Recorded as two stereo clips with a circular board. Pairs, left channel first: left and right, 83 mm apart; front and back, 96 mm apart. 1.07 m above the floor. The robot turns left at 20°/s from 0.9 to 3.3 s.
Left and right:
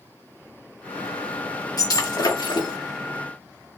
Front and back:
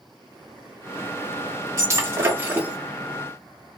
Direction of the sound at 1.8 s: 125° left.